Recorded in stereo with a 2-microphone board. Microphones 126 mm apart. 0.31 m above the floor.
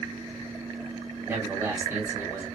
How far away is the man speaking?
About 2.0 m.